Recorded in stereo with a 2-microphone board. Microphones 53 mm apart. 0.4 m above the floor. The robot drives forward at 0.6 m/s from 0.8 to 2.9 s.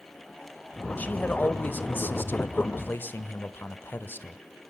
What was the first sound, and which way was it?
A man speaking, 30° left (ahead or behind).